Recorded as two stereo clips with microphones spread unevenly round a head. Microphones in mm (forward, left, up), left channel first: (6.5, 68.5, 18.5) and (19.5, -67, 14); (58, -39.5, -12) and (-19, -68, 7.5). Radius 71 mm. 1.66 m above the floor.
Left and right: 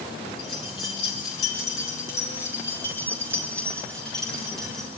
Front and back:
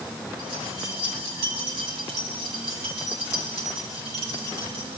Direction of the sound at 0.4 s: 150° left.